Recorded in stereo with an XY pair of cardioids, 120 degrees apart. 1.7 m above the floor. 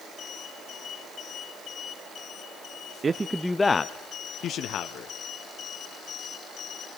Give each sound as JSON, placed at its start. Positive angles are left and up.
{"t": 3.0, "sound": "a man speaking", "azimuth_deg": -35, "distance_m": 0.6}